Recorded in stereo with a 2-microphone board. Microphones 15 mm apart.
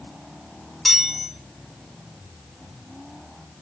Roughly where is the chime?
Centre.